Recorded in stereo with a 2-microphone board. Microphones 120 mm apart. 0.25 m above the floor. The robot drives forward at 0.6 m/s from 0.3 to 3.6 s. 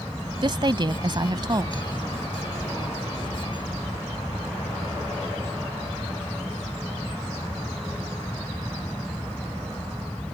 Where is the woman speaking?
40° right (ahead or behind); by 1.8 s 35° right (ahead or behind).